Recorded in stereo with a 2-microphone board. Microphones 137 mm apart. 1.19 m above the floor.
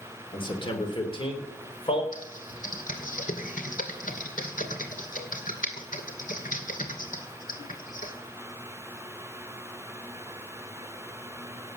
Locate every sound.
0.3 s a man speaking: 35° left (ahead or behind), 3 m; by 2.0 s 40° left (ahead or behind), 4 m
2.1 s typing on a keyboard: 75° left (ahead or behind), 2 m